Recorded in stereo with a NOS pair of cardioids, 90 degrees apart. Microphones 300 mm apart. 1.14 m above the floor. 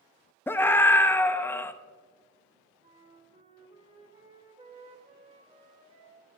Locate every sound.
0.5 s a scream: 10° left, 0.8 m
2.8 s a flute: 20° right, 2 m